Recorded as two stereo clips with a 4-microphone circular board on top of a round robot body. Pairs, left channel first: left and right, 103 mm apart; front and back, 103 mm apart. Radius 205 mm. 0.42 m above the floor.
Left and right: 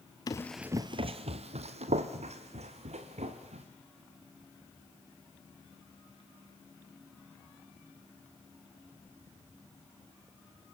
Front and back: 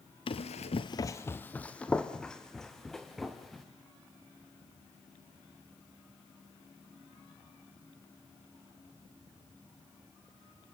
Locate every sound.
0.3 s running footsteps: 35° left, 0.7 m; by 3.6 s 90° right, 3.5 m